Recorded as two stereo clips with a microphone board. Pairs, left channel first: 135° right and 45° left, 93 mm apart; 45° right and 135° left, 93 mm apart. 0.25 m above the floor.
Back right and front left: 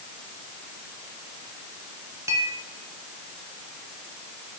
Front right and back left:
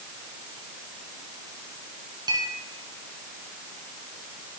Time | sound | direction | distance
2.3 | a clink | 100° left | 2 m